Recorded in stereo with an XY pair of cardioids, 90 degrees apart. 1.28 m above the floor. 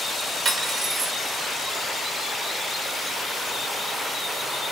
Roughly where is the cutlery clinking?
Ahead right.